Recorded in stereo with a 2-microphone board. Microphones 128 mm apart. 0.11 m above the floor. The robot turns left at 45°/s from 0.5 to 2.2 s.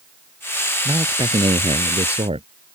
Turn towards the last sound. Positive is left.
turn(degrees=-95)